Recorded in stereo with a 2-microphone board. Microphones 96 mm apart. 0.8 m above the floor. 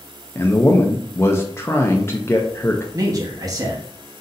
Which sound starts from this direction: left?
A man speaking, at 0.3 s.